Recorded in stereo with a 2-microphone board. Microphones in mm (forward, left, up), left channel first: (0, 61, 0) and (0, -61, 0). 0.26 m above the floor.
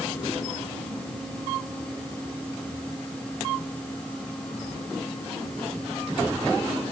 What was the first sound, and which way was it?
Only background noise.